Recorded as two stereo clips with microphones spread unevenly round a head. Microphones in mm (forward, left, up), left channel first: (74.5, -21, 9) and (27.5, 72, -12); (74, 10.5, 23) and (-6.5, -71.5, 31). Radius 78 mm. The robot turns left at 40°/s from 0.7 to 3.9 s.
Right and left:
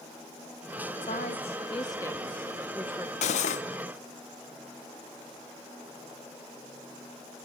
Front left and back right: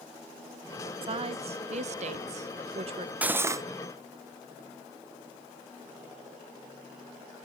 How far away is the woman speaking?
About 1.2 m.